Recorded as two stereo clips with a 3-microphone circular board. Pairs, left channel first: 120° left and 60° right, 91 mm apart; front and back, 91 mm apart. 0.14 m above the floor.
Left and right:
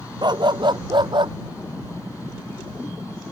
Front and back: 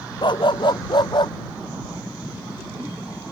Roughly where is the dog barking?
Ahead right.